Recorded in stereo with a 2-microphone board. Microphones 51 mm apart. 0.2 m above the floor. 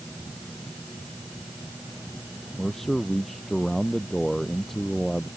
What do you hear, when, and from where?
2.6 s a man speaking: 5° left (ahead or behind)